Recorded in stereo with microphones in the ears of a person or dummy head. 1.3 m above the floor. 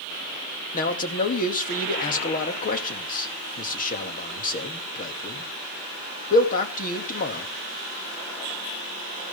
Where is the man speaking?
55° left (ahead or behind), 2.5 m.